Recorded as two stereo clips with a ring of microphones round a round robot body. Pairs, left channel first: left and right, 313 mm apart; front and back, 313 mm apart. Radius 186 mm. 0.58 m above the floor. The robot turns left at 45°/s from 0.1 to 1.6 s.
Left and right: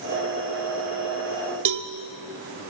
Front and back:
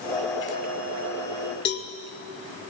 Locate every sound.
1.6 s a cowbell: 60° right, 1.3 m